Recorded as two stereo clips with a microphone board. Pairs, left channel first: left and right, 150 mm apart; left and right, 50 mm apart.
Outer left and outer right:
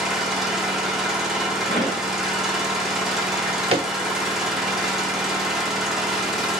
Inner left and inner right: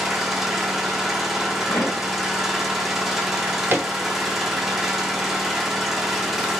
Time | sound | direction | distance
0.0 | an engine running | centre (ahead or behind) | 0.8 m
1.7 | a pop | 85° left | 2 m
3.3 | a drawer | 40° right (ahead or behind) | 0.8 m